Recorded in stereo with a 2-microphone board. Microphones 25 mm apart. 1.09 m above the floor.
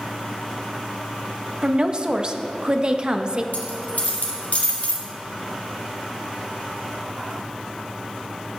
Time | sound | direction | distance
1.6 | a woman speaking | 30° right (ahead or behind) | 0.8 m
3.5 | a dropped coin | 60° left (ahead or behind) | 2.5 m